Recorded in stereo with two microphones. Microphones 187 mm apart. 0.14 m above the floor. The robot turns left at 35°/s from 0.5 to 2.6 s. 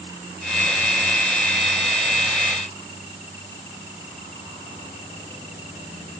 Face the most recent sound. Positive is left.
No sound to turn to.